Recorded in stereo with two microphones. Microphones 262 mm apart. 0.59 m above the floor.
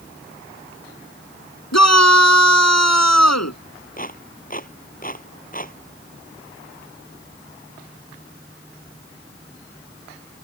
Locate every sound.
1.7 s a shout: 80° left
4.0 s a clap: 30° left (ahead or behind)